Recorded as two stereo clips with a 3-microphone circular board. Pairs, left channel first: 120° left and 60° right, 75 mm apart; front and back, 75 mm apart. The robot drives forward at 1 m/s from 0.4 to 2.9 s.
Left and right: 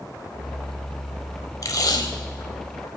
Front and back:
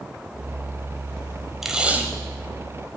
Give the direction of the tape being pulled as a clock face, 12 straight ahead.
9 o'clock.